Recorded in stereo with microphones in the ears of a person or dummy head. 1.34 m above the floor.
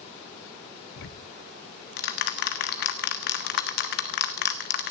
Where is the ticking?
60° left (ahead or behind), 1.2 m.